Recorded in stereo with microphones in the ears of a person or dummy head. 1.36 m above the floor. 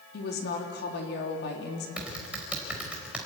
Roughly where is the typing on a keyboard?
Centre.